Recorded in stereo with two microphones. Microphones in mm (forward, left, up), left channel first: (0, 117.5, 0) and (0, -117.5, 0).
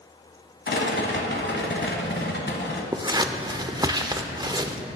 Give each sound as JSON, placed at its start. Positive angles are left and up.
{"t": 0.7, "sound": "a rattle", "side_deg": 50, "distance_m": 1.1}
{"t": 2.9, "sound": "scissors", "side_deg": -20, "distance_m": 0.5}